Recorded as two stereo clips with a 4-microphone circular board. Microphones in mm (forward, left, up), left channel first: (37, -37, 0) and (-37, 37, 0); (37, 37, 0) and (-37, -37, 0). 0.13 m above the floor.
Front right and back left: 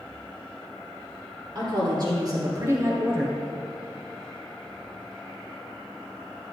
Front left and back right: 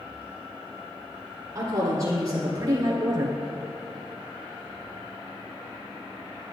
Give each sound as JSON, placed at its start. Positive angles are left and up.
{"t": 1.6, "sound": "a woman speaking", "azimuth_deg": 175, "distance_m": 2.5}